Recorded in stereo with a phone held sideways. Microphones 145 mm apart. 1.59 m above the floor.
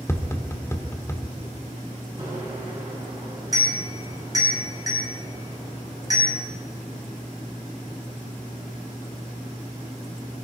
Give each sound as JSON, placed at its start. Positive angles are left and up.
{"t": 0.1, "sound": "tapping", "side_deg": 20, "distance_m": 1.3}
{"t": 2.2, "sound": "a bicycle bell", "side_deg": -25, "distance_m": 7.5}